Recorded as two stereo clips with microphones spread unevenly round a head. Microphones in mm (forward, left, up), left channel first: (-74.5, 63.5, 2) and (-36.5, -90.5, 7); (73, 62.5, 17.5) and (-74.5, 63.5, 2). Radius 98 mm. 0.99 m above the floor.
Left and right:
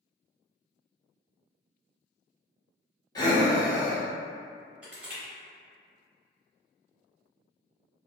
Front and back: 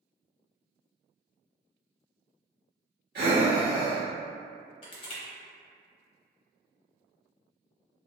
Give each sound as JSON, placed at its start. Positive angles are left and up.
{"t": 3.1, "sound": "breathing", "azimuth_deg": 170, "distance_m": 1.0}
{"t": 4.8, "sound": "crushing", "azimuth_deg": 5, "distance_m": 0.9}